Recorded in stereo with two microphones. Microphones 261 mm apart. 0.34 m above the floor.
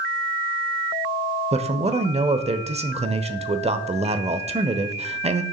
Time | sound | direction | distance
1.5 | a man speaking | 25° right (ahead or behind) | 1.1 m